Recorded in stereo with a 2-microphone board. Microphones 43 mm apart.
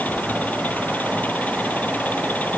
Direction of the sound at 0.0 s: 40° left (ahead or behind).